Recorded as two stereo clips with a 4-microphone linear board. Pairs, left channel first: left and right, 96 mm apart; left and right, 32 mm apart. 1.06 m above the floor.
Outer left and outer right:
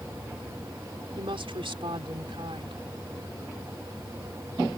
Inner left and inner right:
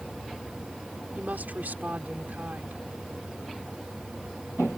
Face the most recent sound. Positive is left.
turn(degrees=-80)